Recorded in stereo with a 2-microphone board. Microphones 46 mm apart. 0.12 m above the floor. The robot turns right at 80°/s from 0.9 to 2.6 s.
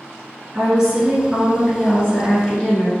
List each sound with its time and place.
0.5 s a woman speaking: 15° right (ahead or behind), 1.1 m; by 2.9 s 25° left (ahead or behind), 1.1 m